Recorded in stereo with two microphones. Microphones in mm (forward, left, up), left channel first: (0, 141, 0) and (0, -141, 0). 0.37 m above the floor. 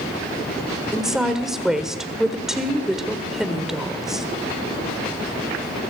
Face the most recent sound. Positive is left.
turn(degrees=0)  # may be behind; listen again after turning